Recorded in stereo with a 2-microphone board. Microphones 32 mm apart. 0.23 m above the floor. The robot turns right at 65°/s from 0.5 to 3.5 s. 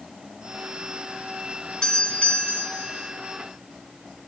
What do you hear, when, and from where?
1.8 s a doorbell: 30° left, 2.5 m; by 3.1 s 110° left, 2.5 m